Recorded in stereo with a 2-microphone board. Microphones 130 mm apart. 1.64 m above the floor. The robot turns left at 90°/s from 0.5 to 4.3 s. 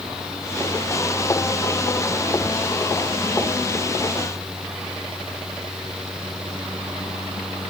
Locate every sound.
Only background noise.